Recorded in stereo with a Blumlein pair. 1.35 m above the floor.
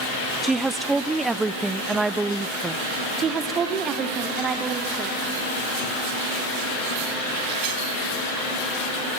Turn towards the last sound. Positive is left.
turn(degrees=-25)